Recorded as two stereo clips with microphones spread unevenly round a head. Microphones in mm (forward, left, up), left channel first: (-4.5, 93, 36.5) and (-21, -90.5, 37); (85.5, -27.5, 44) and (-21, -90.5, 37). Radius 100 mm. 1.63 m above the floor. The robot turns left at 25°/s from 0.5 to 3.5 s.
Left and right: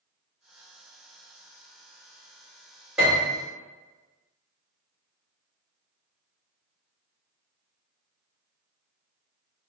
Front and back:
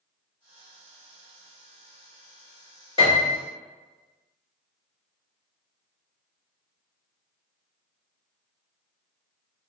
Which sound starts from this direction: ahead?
A piano, at 3.0 s.